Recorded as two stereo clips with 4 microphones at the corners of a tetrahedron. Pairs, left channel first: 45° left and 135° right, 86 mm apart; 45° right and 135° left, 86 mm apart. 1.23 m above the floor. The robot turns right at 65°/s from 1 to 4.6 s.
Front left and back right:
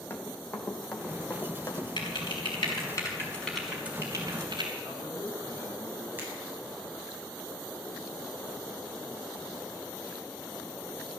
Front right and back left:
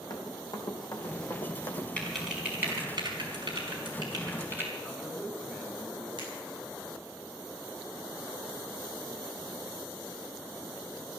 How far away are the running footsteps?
About 2.5 m.